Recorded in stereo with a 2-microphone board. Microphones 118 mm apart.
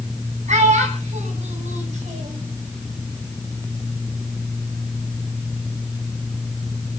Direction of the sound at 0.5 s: 80° right.